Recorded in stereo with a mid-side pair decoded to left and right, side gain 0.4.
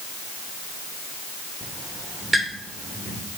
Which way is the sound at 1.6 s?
15° right.